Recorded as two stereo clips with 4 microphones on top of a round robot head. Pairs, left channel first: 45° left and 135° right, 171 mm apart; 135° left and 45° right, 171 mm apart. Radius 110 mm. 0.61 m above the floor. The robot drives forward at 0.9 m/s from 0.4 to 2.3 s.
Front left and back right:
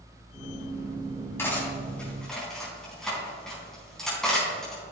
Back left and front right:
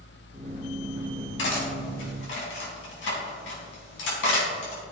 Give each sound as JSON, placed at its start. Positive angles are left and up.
{"t": 1.4, "sound": "cutlery clinking", "azimuth_deg": 125, "distance_m": 3.5}